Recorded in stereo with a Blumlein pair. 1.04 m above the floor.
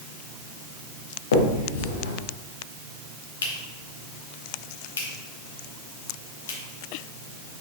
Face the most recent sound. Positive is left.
turn(degrees=65)